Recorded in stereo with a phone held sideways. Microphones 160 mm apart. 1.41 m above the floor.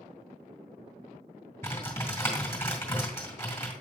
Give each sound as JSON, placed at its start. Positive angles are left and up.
{"t": 1.6, "sound": "typing on a keyboard", "side_deg": 15, "distance_m": 2.0}